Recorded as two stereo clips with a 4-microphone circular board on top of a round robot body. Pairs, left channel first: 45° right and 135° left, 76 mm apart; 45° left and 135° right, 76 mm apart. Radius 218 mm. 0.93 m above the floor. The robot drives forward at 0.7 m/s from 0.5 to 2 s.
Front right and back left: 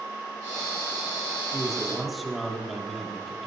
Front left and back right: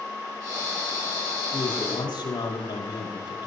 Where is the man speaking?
50° left, 6.5 m.